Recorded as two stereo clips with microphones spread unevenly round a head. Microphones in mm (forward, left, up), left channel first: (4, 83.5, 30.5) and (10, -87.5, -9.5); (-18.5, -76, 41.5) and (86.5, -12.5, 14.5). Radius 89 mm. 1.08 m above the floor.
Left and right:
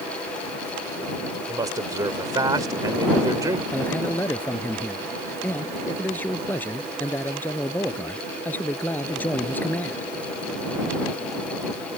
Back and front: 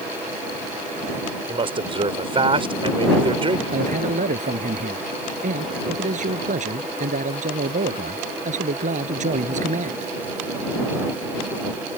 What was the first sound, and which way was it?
A man speaking, 15° right.